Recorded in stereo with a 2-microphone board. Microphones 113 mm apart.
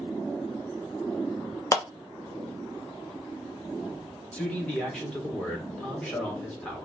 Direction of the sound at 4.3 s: 10° left (ahead or behind).